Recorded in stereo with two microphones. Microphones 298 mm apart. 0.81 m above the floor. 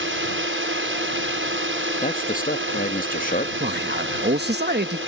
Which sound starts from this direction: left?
A man speaking, at 2.0 s.